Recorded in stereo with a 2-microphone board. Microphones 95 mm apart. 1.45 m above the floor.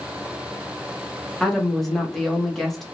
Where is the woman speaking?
Centre (ahead or behind), 0.9 m.